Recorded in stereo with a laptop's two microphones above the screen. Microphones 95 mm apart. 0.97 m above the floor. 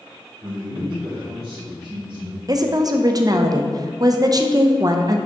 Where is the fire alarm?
No fire alarm in this recording.